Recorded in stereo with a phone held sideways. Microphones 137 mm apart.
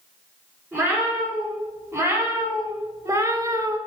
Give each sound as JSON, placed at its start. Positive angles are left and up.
{"t": 0.7, "sound": "a cat meowing", "side_deg": -20, "distance_m": 3.0}